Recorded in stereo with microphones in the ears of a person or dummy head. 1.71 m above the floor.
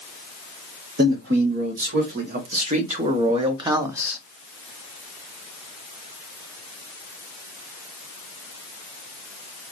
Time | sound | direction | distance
1.0 | a man speaking | 60° right (ahead or behind) | 2 m